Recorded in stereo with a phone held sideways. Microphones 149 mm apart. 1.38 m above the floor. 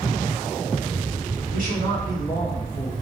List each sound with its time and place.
1.5 s a man speaking: 70° left (ahead or behind), 3 m; by 2.9 s 65° left (ahead or behind), 2.5 m